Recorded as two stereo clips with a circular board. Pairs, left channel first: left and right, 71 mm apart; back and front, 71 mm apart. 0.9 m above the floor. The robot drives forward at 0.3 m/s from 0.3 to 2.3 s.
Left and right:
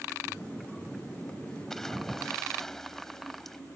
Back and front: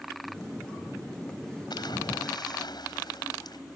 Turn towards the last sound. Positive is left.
turn(degrees=175)